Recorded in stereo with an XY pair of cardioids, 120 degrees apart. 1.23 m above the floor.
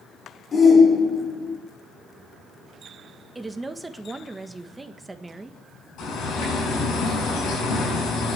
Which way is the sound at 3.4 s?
15° right.